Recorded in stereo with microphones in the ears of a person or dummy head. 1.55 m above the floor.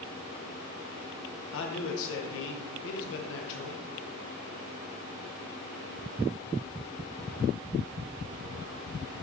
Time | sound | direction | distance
1.5 | a man speaking | 75° left (ahead or behind) | 1.4 m